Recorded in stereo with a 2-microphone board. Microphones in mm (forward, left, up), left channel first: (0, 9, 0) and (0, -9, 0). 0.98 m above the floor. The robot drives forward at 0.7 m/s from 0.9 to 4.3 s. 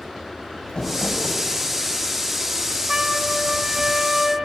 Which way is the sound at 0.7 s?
55° left (ahead or behind).